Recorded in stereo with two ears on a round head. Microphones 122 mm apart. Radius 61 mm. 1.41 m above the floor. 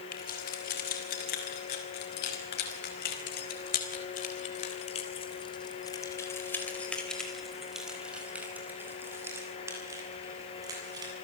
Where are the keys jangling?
80° left, 7.5 m; by 11.1 s 25° right (ahead or behind), 8 m.